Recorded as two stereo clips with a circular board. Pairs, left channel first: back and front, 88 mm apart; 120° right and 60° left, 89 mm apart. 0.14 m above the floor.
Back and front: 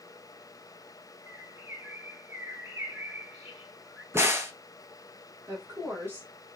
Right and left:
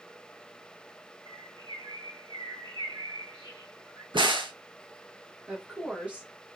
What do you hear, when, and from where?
1.3 s a bird: 60° left, 1.5 m
4.1 s a crack: 60° left, 0.8 m
5.5 s a woman speaking: straight ahead, 1.8 m